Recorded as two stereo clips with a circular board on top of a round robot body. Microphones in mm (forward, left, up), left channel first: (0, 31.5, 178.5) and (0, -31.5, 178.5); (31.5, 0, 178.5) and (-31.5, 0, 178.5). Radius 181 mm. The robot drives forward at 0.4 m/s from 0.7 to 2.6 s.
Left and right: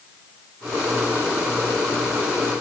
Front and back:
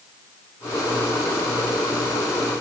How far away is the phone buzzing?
I don't hear a phone buzzing.